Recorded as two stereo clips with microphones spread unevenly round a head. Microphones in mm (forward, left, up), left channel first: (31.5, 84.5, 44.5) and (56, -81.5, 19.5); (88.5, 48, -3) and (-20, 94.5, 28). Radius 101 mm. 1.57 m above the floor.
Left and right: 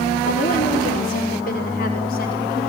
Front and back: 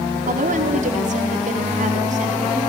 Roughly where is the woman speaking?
Behind left.